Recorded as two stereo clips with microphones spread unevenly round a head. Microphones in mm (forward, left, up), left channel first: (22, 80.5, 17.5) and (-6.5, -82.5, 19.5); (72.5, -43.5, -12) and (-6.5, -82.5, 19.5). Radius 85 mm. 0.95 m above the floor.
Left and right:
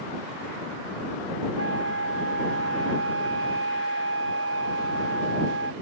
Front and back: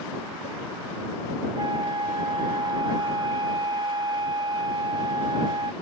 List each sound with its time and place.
1.6 s a flute: 120° right